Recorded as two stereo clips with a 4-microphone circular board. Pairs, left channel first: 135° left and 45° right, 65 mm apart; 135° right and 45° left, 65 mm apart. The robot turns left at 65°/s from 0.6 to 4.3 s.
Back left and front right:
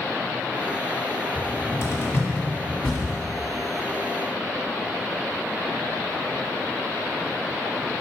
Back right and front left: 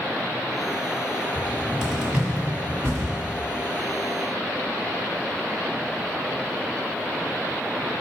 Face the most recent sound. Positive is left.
turn(degrees=-45)